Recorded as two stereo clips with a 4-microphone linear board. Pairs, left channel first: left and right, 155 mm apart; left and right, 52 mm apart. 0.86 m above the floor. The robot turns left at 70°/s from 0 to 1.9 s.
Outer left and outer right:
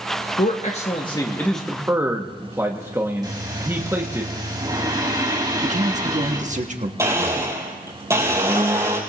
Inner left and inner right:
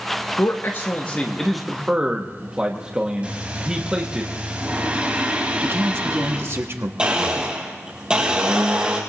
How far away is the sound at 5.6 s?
About 1.4 m.